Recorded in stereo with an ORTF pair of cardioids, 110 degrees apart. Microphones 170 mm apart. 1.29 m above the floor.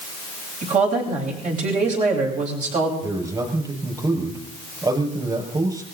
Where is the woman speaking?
50° right, 8 m.